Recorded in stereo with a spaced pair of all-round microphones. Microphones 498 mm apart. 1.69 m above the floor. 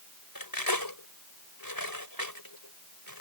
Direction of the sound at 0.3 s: 40° left (ahead or behind).